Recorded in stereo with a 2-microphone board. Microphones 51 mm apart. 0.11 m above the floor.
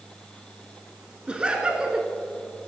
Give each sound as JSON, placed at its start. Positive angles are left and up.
{"t": 1.3, "sound": "laughter", "side_deg": -20, "distance_m": 1.1}